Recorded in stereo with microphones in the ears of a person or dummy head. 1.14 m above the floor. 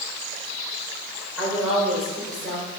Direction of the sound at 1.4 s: 5° right (ahead or behind).